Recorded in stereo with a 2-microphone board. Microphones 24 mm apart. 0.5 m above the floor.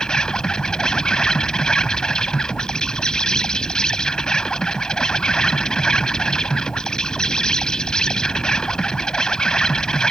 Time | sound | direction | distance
0.0 | an insect | 30° left (ahead or behind) | ?